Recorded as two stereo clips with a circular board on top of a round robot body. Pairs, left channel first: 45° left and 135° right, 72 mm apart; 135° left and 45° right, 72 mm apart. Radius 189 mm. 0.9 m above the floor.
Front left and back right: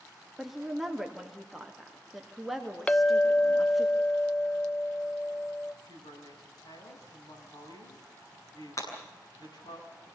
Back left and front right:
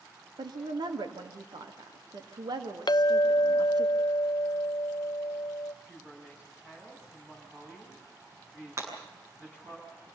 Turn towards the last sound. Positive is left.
turn(degrees=5)